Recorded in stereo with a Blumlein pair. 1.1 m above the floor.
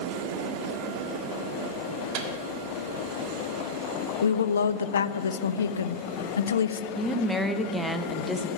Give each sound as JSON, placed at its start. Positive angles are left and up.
{"t": 2.1, "sound": "a microwave", "azimuth_deg": -40, "distance_m": 1.9}
{"t": 4.2, "sound": "a woman speaking", "azimuth_deg": 70, "distance_m": 0.6}
{"t": 7.0, "sound": "a woman speaking", "azimuth_deg": 0, "distance_m": 1.1}